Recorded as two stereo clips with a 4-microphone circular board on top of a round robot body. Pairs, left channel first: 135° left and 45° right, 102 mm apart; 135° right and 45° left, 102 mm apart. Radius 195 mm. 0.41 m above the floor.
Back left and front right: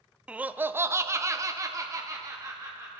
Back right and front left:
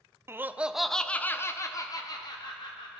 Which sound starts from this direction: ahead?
Laughter, at 0.3 s.